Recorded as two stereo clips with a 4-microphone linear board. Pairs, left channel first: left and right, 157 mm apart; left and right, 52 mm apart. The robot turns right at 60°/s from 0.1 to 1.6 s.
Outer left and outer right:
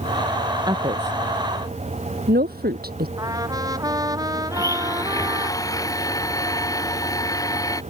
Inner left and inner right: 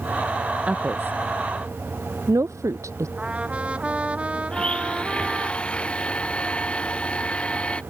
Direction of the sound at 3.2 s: 25° right (ahead or behind).